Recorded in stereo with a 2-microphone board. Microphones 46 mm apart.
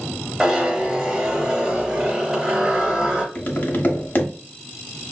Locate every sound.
0.4 s a zipper: 15° right (ahead or behind), 1.0 m
3.4 s tapping: 45° left (ahead or behind), 0.7 m